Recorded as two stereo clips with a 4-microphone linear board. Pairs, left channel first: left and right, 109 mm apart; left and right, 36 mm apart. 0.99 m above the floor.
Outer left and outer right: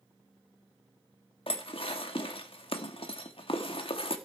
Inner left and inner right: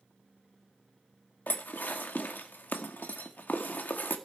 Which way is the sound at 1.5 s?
55° left (ahead or behind).